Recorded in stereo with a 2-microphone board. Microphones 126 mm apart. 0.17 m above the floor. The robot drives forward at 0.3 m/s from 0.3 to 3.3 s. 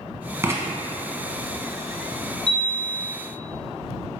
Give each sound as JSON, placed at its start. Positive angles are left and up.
{"t": 0.4, "sound": "writing", "side_deg": -20, "distance_m": 0.6}
{"t": 2.5, "sound": "a chime", "side_deg": 65, "distance_m": 0.7}